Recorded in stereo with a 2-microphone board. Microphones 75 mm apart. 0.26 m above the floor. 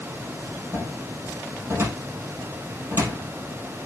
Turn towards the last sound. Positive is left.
turn(degrees=-45)  # may be behind; listen again after turning